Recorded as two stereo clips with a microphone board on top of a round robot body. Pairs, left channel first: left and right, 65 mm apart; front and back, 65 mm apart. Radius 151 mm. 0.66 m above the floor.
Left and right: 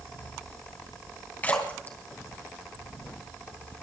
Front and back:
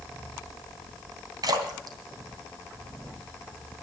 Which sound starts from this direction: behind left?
A splash, at 1.4 s.